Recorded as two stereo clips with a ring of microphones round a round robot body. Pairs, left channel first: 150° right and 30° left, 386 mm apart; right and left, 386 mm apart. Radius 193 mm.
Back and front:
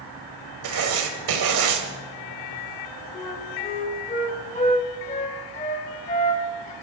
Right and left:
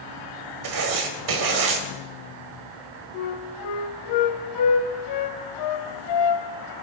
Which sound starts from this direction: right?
A flute, at 3.1 s.